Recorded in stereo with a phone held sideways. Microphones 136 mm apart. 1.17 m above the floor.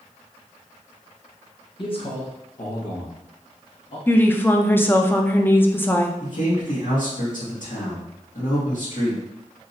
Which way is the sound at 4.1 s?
15° left (ahead or behind).